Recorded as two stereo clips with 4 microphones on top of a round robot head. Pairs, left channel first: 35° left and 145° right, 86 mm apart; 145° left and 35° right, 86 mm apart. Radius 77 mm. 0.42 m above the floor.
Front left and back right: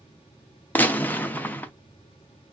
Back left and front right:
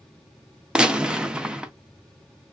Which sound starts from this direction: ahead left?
A gunshot, at 0.8 s.